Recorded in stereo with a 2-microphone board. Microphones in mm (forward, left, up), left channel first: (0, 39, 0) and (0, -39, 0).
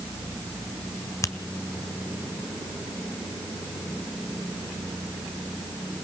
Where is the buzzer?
I don't hear a buzzer.